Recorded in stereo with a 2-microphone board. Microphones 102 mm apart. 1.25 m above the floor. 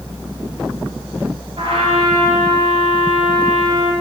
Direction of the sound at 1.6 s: 65° right (ahead or behind).